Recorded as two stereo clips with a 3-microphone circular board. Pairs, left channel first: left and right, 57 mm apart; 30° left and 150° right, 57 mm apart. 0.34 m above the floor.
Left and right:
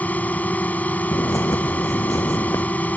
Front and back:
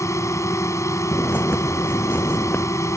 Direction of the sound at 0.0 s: 35° left.